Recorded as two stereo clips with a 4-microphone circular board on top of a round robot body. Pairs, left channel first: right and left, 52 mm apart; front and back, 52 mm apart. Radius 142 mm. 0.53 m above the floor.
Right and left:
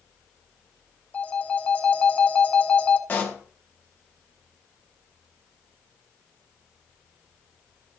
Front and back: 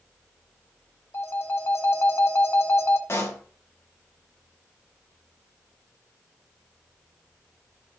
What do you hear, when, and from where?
1.1 s a phone ringing: 30° right, 1.6 m
3.1 s a pop: 35° right, 3 m